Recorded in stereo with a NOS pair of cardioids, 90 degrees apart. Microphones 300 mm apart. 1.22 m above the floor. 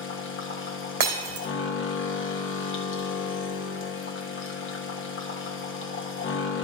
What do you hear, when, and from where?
0.0 s a machine running: 40° left, 1.5 m
1.0 s breaking glass: 40° right, 2.5 m